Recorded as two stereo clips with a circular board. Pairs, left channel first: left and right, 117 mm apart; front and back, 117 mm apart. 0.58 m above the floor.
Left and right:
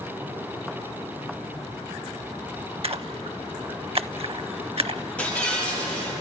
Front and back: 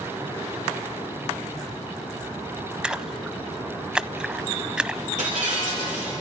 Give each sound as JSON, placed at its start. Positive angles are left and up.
{"t": 2.8, "sound": "a splash", "azimuth_deg": -100, "distance_m": 0.6}
{"t": 5.2, "sound": "breaking glass", "azimuth_deg": 170, "distance_m": 10.0}